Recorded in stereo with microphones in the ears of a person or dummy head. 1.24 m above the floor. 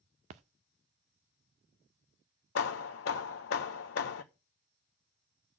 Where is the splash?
35° right (ahead or behind), 0.5 m.